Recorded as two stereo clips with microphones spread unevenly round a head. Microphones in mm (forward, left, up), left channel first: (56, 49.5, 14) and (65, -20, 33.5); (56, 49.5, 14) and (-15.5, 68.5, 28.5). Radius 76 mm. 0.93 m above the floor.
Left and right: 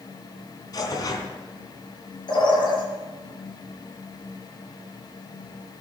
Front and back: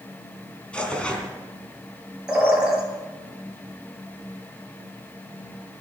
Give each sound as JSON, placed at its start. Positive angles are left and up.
{"t": 0.7, "sound": "tearing paper", "azimuth_deg": 65, "distance_m": 4.0}
{"t": 2.3, "sound": "a bird", "azimuth_deg": 85, "distance_m": 7.0}